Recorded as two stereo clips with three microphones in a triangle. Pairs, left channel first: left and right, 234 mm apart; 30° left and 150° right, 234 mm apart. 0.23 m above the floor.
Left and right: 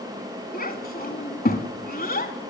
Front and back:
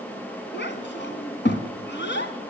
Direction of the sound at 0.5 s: 50° left.